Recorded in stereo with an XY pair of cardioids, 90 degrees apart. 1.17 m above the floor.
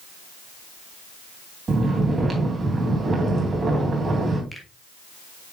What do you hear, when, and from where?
1.7 s snoring: 40° right, 3 m
4.5 s a finger snap: 5° left, 2.5 m